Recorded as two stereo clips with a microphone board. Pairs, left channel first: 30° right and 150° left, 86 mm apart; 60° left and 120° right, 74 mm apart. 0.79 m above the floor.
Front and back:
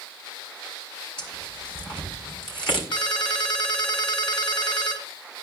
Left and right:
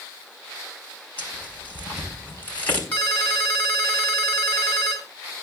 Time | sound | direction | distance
1.2 | tearing paper | 10° right | 5 m
2.9 | a ringtone | 5° right | 3.5 m